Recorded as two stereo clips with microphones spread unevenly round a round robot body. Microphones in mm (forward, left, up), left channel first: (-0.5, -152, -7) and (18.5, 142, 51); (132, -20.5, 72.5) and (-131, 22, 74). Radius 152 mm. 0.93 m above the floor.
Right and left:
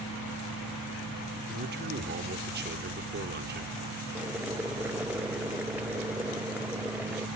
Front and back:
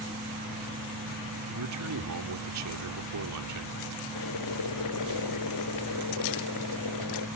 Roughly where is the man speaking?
Behind left.